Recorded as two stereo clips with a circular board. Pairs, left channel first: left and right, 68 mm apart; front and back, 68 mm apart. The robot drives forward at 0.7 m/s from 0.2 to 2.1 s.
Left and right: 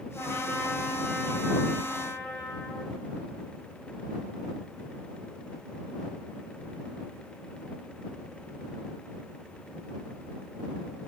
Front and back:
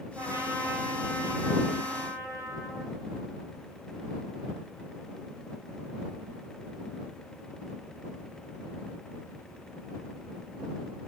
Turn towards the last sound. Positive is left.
turn(degrees=155)